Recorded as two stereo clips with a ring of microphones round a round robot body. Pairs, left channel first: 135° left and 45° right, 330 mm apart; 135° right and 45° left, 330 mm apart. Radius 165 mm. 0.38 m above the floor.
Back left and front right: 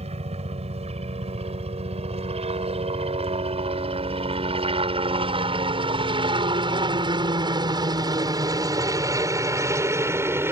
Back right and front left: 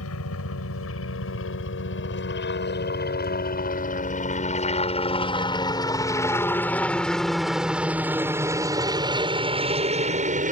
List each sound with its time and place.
0.0 s a helicopter: 110° right; by 10.5 s 30° left